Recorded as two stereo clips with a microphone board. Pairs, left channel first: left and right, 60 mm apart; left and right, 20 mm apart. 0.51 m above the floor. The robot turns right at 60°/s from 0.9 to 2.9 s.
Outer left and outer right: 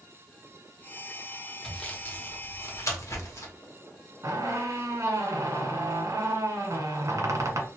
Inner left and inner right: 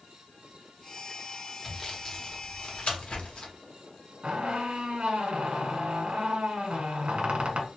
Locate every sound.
1.6 s sawing: 10° left (ahead or behind), 0.8 m; by 3.5 s 55° left (ahead or behind), 0.8 m
4.2 s a squeak: 65° right (ahead or behind), 0.7 m